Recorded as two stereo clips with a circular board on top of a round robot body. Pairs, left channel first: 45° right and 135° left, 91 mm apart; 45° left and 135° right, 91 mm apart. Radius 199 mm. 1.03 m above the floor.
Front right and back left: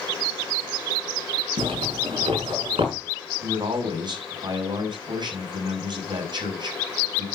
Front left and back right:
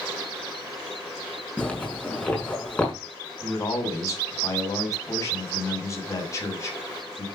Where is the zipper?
120° left, 6 m.